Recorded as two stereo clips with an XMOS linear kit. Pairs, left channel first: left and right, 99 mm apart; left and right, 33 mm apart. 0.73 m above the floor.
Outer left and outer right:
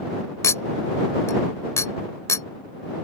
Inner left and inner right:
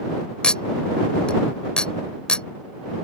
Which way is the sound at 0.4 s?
30° left (ahead or behind).